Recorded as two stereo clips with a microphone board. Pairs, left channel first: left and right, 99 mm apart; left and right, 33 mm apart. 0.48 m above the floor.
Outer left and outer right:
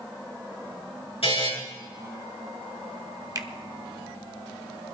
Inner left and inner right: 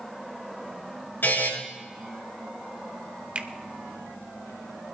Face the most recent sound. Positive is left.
turn(degrees=-40)  # may be behind; listen again after turning